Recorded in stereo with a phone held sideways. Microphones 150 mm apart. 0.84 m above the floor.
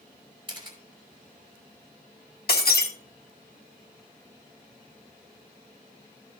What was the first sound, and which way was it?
A camera shutter, 30° right (ahead or behind).